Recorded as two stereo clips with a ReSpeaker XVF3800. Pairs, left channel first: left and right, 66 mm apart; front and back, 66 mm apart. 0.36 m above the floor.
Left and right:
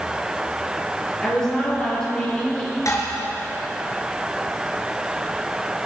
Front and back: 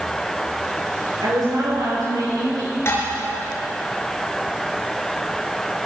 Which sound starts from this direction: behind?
A woman speaking, at 1.2 s.